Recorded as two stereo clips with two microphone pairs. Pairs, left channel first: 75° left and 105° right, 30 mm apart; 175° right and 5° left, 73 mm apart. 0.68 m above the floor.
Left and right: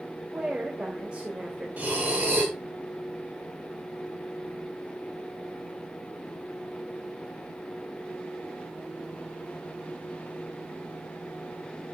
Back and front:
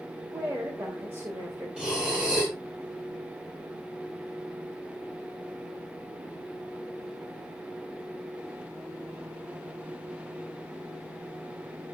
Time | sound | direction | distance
0.3 | a woman speaking | 50° right | 3 m
1.8 | breathing | 75° right | 5.5 m